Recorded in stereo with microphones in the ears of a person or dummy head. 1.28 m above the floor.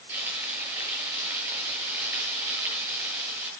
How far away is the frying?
About 9.5 m.